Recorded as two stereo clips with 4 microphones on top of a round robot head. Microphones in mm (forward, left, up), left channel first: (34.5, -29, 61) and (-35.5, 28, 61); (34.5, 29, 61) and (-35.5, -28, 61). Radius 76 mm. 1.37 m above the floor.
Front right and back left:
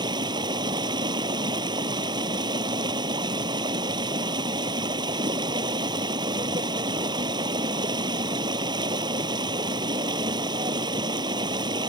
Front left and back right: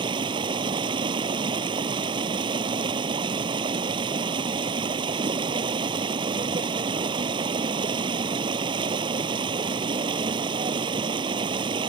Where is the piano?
No piano in this recording.